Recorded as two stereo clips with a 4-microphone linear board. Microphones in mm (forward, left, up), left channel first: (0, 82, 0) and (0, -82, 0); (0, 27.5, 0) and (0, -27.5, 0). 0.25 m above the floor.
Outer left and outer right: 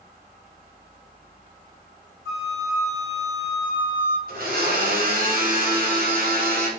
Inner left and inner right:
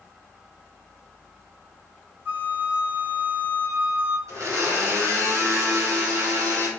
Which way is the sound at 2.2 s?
40° right (ahead or behind).